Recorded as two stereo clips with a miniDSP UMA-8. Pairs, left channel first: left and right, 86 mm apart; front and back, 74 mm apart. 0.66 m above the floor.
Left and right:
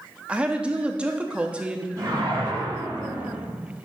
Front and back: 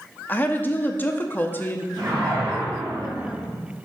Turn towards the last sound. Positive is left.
turn(degrees=-140)